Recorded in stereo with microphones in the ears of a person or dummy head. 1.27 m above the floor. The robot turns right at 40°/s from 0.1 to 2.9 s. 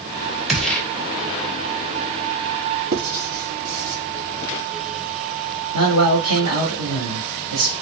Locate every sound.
0.5 s a gunshot: 5° right (ahead or behind), 0.6 m; by 0.8 s 5° left (ahead or behind), 0.6 m
2.9 s writing: 50° right (ahead or behind), 1.0 m
5.7 s a man speaking: 70° right (ahead or behind), 2 m